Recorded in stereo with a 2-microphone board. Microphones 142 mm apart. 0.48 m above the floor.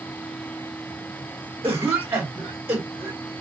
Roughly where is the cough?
Centre.